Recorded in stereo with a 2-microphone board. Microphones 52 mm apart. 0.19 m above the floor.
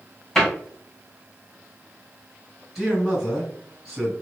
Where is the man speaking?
Centre (ahead or behind), 1.9 m.